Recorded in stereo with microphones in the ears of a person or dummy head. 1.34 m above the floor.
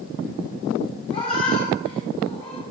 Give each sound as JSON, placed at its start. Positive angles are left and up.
{"t": 1.1, "sound": "a cat meowing", "side_deg": 30, "distance_m": 1.1}